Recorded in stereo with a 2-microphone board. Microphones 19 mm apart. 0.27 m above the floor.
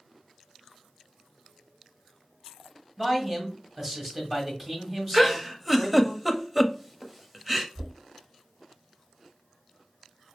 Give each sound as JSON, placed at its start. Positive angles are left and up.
{"t": 3.0, "sound": "a man speaking", "side_deg": -5, "distance_m": 1.1}
{"t": 5.1, "sound": "a giggle", "side_deg": -5, "distance_m": 0.6}
{"t": 7.8, "sound": "knocking", "side_deg": -30, "distance_m": 1.3}